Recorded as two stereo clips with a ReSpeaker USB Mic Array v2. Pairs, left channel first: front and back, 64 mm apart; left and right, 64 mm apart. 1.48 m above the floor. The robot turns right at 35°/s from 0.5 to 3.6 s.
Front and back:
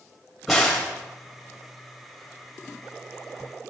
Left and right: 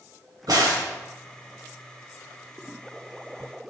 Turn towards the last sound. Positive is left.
turn(degrees=15)